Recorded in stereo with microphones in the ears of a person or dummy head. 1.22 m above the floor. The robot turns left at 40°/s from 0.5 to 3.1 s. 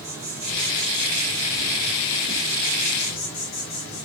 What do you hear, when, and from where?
0.0 s an insect: 175° right, 1.0 m; by 4.0 s 85° left, 1.0 m